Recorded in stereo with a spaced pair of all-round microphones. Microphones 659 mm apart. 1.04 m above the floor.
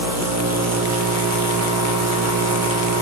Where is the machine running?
25° right (ahead or behind), 0.7 m.